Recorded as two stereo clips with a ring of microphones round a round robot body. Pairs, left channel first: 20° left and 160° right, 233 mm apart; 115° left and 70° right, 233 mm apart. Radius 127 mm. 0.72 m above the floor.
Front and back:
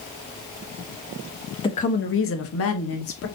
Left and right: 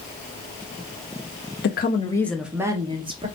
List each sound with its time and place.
1.6 s a woman speaking: 90° left, 0.8 m; by 3.3 s straight ahead, 1.7 m